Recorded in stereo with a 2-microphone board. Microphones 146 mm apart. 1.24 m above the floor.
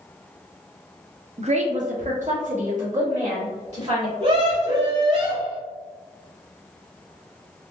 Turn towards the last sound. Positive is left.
turn(degrees=-50)  # may be behind; listen again after turning